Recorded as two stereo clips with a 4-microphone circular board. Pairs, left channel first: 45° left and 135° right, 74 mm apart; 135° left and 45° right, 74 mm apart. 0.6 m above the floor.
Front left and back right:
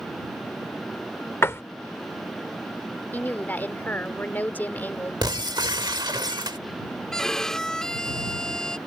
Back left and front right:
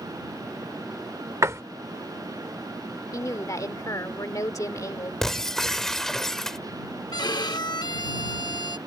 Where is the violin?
125° left.